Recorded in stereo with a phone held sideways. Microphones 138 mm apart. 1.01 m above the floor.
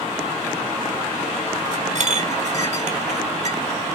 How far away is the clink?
About 1.5 m.